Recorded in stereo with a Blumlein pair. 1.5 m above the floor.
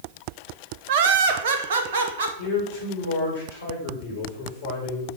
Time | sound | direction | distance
0.9 | laughter | 50° right | 1.1 m
2.4 | a man speaking | 60° left | 5.5 m